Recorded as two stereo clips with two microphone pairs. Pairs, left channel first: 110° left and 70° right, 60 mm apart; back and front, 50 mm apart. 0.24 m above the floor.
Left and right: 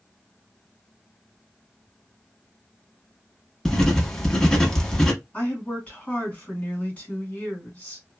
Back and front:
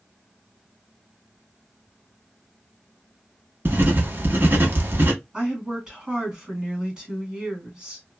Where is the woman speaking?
50° left, 1.7 m.